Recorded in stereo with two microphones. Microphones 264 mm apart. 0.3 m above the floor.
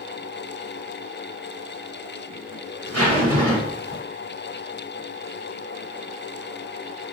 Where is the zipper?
65° right (ahead or behind), 1.9 m.